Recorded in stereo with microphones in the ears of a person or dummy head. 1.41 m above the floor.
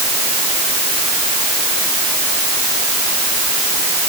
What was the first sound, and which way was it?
Only background noise.